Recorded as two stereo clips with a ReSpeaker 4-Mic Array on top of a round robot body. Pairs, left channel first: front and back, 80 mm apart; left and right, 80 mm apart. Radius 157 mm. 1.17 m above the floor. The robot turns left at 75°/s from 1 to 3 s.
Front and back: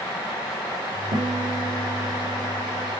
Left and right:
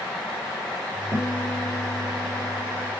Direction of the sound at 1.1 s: 170° right.